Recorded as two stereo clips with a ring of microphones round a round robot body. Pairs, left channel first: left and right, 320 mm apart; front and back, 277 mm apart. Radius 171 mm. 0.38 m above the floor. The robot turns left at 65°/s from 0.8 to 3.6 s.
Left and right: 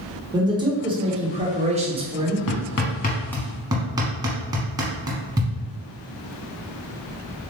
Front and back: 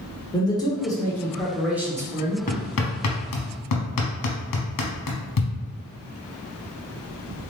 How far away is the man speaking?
About 1.1 m.